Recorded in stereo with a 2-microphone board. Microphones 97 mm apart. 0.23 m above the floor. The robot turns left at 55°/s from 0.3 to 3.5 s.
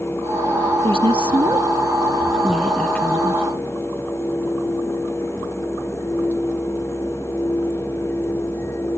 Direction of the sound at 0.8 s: 80° right.